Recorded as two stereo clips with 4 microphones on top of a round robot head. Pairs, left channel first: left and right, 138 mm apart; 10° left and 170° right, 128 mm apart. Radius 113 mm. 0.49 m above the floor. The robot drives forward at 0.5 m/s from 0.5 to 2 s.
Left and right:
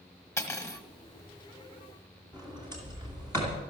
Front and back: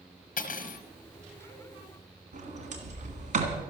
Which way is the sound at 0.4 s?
20° left.